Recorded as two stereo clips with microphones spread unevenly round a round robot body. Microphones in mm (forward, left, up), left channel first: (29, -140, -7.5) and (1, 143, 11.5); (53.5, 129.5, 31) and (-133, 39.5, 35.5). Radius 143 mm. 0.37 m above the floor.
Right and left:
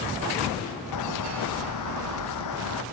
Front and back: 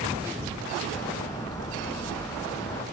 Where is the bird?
55° right.